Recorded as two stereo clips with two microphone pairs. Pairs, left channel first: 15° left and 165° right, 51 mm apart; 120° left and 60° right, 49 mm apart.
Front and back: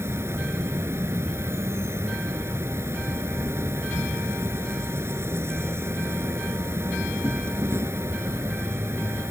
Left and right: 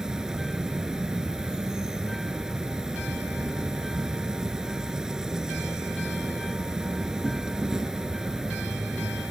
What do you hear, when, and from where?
0.0 s an insect: 135° right